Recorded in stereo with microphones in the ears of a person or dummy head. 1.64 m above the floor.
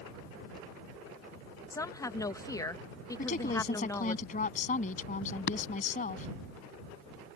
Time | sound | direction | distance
1.7 | a woman speaking | 15° left (ahead or behind) | ?
3.2 | a woman speaking | 45° left (ahead or behind) | ?
5.5 | tapping | 60° left (ahead or behind) | ?